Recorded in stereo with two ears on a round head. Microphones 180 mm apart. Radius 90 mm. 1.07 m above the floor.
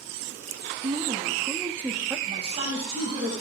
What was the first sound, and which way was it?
A woman speaking, 30° right (ahead or behind).